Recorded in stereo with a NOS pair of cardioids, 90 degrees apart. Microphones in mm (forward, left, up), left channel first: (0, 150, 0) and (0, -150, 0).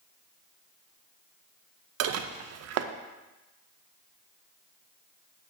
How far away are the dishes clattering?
About 0.5 m.